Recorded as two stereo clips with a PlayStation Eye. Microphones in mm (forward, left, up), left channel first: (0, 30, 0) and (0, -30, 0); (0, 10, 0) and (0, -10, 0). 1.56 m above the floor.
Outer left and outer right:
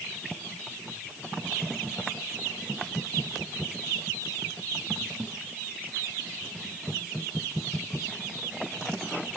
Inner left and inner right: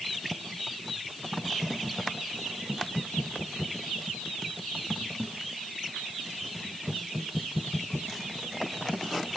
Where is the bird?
I don't hear a bird.